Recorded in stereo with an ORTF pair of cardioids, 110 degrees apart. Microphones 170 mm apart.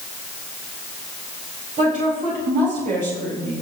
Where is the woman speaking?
50° right, 4 m.